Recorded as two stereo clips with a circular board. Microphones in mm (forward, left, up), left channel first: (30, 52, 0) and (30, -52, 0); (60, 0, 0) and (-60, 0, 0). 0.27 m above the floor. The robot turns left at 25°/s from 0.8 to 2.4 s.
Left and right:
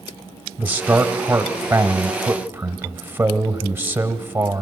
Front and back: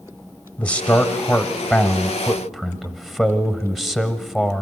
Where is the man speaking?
55° right, 1.0 m; by 4.6 s 95° right, 1.0 m.